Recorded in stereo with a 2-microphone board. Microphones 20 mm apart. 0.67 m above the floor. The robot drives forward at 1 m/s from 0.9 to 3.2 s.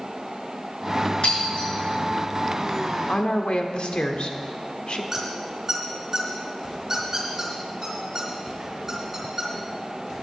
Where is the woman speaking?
65° left (ahead or behind), 1.3 m; by 5.0 s 60° left (ahead or behind), 1.3 m.